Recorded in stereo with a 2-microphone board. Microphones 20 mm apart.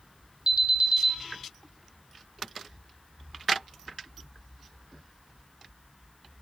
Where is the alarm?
50° right (ahead or behind), 1.7 m.